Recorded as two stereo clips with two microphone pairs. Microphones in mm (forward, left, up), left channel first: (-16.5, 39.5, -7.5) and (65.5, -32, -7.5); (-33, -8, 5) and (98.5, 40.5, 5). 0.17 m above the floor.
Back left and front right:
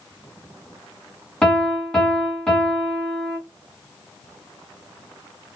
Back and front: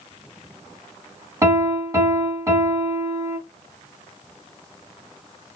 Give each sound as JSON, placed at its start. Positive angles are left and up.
{"t": 1.4, "sound": "a piano", "azimuth_deg": 60, "distance_m": 1.1}